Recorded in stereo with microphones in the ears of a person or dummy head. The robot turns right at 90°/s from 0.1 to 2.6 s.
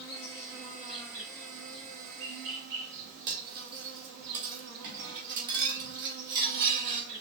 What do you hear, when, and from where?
0.0 s an insect: 70° left, 3 m; by 7.2 s 65° right, 3 m
3.3 s cutlery clinking: 60° right (ahead or behind), 2.0 m